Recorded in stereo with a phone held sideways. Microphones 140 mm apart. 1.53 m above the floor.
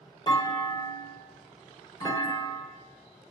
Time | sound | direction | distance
0.3 | a clunk | 35° left (ahead or behind) | 1.6 m